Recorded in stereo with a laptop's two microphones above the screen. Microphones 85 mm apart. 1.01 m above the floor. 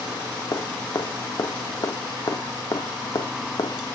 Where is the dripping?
55° left (ahead or behind), 1.0 m.